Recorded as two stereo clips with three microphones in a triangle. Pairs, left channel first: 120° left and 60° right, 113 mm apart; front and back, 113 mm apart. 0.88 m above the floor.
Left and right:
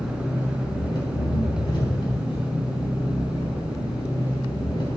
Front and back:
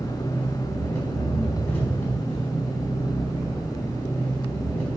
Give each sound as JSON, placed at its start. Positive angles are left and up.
{"t": 0.0, "sound": "an engine running", "azimuth_deg": 75, "distance_m": 4.0}